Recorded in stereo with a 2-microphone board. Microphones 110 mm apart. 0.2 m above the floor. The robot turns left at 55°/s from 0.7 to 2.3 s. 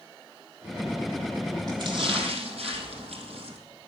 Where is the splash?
40° right, 3 m; by 3.6 s 75° right, 3 m.